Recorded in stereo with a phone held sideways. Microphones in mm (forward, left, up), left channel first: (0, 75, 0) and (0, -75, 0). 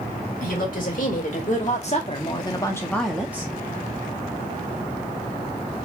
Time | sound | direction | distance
0.4 | a woman speaking | 65° left (ahead or behind) | 1.8 m